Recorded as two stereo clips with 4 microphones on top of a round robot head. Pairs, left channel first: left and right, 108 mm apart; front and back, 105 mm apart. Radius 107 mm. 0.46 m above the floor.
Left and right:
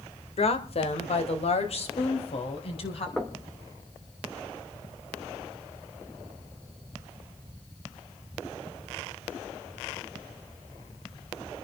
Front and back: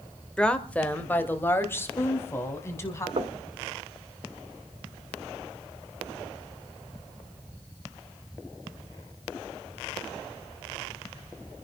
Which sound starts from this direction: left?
A woman speaking, at 0.4 s.